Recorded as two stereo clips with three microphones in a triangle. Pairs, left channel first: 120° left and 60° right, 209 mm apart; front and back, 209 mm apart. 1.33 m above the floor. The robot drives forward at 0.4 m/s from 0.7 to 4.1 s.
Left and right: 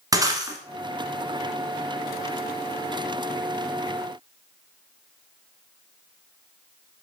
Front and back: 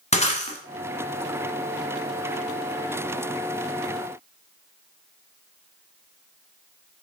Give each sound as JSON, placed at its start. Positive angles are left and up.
{"t": 0.1, "sound": "breaking glass", "azimuth_deg": 0, "distance_m": 1.4}